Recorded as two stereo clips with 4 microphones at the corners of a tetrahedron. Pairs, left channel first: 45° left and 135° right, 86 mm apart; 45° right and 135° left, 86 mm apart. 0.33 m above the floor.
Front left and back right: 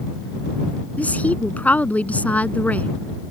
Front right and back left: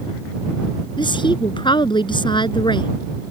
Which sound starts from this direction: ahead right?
A woman speaking, at 1.0 s.